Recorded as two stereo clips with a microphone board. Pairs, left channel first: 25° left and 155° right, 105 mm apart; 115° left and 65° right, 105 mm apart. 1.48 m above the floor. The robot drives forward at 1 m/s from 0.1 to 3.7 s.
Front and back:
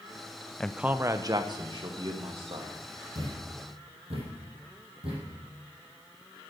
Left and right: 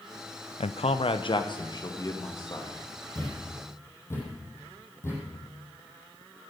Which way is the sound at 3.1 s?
175° left.